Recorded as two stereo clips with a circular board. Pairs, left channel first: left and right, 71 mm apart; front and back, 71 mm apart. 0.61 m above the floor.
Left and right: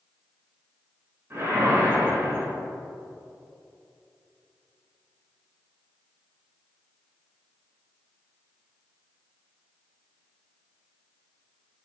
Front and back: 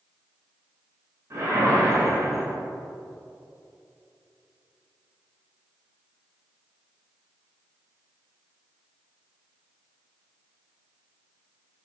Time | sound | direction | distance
1.3 | a whoosh | 145° right | 2 m